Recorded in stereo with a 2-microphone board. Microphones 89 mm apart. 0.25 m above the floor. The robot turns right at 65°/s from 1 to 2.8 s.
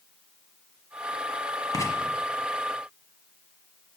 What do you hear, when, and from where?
1.7 s writing: 45° left (ahead or behind), 1.1 m; by 1.9 s 35° left (ahead or behind), 1.1 m